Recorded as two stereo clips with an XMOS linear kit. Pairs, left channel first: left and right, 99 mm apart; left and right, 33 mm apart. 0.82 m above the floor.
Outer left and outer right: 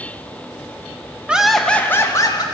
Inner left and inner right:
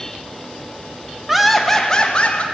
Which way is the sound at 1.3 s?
10° right (ahead or behind).